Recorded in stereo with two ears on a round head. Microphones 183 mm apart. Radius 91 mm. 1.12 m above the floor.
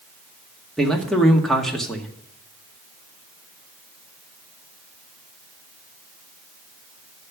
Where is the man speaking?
Centre (ahead or behind), 1.9 m.